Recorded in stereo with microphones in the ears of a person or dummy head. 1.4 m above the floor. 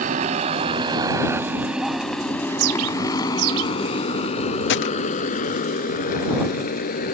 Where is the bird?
75° right (ahead or behind).